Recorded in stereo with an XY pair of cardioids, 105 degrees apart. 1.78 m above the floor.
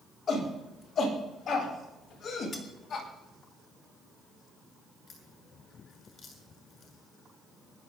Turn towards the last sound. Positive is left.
turn(degrees=50)